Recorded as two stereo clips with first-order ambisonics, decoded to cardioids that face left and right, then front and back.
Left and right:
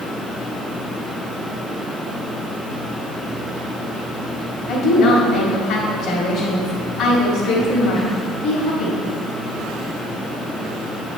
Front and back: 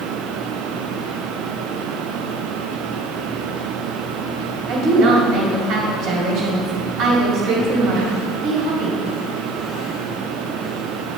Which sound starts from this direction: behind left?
A woman speaking, at 4.7 s.